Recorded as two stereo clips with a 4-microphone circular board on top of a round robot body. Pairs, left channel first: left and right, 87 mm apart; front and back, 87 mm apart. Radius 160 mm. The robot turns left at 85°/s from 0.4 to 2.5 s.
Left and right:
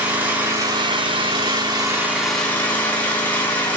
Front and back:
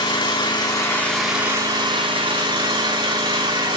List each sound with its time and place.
0.0 s an engine running: 20° right, 4 m; by 3.8 s 160° left, 4 m